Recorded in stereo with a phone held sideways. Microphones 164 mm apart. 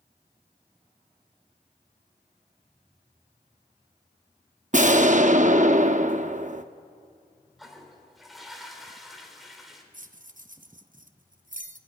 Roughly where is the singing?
I don't hear singing.